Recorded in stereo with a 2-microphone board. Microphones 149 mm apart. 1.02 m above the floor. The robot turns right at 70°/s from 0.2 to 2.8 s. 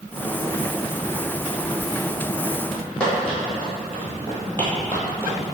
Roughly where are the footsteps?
Centre.